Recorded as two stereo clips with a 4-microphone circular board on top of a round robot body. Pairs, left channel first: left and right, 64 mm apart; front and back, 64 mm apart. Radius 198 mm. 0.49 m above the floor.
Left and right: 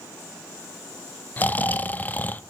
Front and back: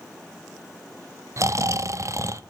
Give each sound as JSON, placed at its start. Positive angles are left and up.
{"t": 1.4, "sound": "snoring", "azimuth_deg": 150, "distance_m": 0.5}